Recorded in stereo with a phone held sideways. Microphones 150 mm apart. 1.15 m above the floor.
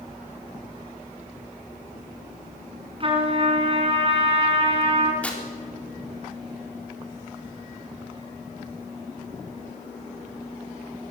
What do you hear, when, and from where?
3.0 s a trumpet: 40° right (ahead or behind), 4 m
5.2 s tearing paper: 10° left (ahead or behind), 3.5 m